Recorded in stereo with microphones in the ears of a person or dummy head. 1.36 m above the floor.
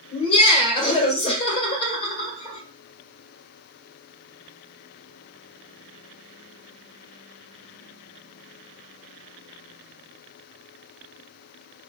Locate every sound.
0.1 s laughter: 40° left (ahead or behind), 1.4 m